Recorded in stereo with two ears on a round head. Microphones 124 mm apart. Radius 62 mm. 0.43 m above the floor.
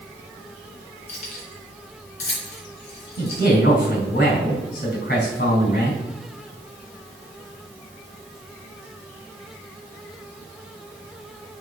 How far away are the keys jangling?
About 3 m.